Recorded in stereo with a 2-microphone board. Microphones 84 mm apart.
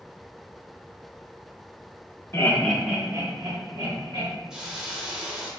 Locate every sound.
2.3 s laughter: 35° left (ahead or behind), 0.7 m; by 4.3 s 65° right (ahead or behind), 1.7 m
4.5 s a hiss: 10° right (ahead or behind), 0.7 m